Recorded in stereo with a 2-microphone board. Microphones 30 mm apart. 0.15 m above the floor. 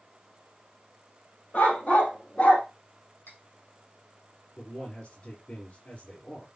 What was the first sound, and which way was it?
A dog barking, 60° left (ahead or behind).